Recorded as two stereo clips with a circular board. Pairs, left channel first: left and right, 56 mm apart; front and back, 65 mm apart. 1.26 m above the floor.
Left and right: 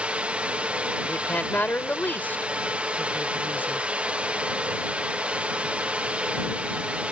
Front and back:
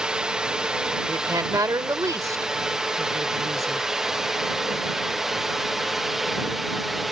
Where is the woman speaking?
150° left.